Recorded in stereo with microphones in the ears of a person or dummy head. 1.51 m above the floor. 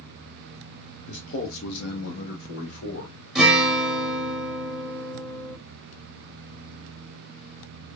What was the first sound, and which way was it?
A man speaking, 55° left (ahead or behind).